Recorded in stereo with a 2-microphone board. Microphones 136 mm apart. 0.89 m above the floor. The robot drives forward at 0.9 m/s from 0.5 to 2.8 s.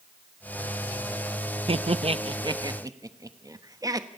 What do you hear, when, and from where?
1.7 s laughter: 45° right (ahead or behind), 0.6 m; by 4.1 s 25° right (ahead or behind), 1.0 m